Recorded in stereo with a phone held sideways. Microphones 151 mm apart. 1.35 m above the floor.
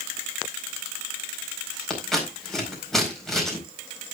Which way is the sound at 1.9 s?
Centre (ahead or behind).